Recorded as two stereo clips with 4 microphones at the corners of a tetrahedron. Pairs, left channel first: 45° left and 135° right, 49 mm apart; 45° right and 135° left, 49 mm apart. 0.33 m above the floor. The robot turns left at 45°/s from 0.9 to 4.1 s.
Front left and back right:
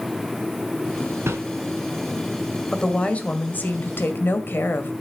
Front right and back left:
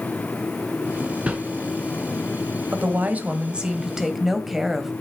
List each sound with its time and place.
1.3 s a whoosh: 160° right, 2.5 m; by 1.4 s 165° right, 2.5 m
2.7 s a woman speaking: 115° left, 1.9 m; by 4.9 s 50° left, 1.9 m